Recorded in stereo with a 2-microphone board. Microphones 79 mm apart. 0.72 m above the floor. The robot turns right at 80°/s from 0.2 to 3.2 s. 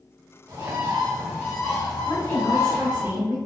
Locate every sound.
0.5 s a bird: 50° right, 1.3 m; by 3.0 s 155° left, 1.3 m
2.0 s a woman speaking: 125° left, 1.9 m; by 3.4 s 145° right, 1.9 m